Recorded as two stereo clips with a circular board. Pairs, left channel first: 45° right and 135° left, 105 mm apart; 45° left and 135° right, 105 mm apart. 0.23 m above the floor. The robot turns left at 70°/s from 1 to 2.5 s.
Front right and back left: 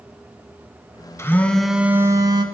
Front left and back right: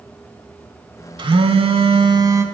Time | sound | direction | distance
1.2 | a phone buzzing | 105° right | 0.6 m